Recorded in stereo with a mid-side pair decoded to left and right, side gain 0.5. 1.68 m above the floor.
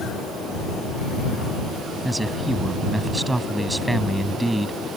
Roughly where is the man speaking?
Ahead.